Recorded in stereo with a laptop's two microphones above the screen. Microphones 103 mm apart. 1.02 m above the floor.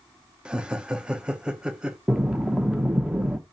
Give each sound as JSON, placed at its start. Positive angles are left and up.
{"t": 0.5, "sound": "laughter", "side_deg": -10, "distance_m": 0.6}
{"t": 2.1, "sound": "breathing", "side_deg": -5, "distance_m": 0.7}